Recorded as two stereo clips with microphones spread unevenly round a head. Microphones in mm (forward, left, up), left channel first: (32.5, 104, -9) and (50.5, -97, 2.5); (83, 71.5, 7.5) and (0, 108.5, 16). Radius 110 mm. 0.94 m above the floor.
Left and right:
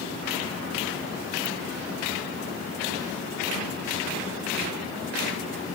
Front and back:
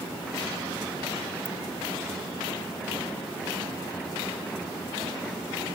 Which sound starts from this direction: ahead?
A ringtone, at 1.4 s.